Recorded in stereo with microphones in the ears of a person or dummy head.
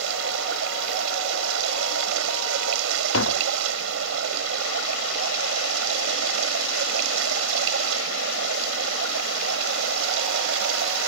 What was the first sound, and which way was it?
Running water, 90° right.